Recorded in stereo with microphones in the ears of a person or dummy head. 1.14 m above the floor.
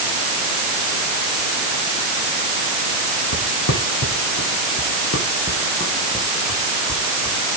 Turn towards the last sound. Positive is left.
turn(degrees=0)  # may be behind; listen again after turning